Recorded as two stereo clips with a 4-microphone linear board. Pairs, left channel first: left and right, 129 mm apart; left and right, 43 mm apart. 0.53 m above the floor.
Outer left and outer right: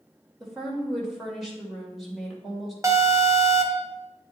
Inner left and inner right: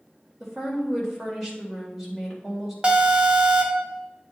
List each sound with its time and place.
0.4 s a woman speaking: centre (ahead or behind), 2.5 m
2.8 s an alarm: 25° right (ahead or behind), 1.0 m